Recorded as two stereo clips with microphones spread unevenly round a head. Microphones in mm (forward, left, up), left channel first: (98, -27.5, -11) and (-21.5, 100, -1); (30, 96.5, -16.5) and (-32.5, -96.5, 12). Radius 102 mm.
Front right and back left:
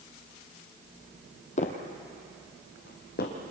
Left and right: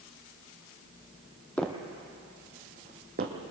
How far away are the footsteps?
About 1.8 m.